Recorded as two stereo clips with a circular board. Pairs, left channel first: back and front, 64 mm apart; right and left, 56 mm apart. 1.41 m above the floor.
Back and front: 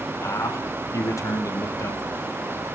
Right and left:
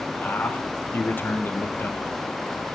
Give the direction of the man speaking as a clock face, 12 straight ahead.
5 o'clock.